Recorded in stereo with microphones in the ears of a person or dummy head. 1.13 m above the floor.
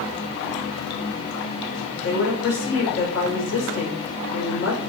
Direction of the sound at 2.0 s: 80° left.